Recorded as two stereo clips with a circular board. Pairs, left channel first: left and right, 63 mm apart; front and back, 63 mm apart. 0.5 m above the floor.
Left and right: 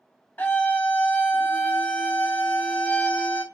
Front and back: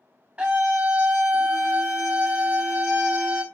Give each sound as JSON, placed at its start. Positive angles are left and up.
{"t": 0.4, "sound": "a scream", "azimuth_deg": 120, "distance_m": 1.0}